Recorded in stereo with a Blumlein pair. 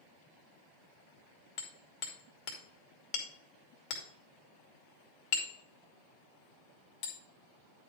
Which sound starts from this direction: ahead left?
Hammering, at 1.6 s.